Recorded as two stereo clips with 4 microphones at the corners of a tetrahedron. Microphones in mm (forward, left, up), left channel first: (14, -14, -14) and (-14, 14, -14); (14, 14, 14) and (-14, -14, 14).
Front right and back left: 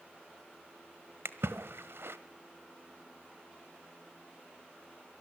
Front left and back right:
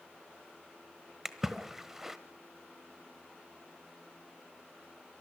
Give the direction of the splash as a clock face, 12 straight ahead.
7 o'clock.